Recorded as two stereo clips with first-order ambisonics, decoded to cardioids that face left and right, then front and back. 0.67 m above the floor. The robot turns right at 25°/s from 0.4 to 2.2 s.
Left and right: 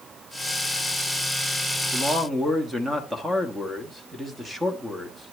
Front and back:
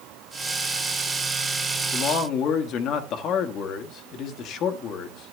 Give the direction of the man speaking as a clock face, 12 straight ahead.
1 o'clock.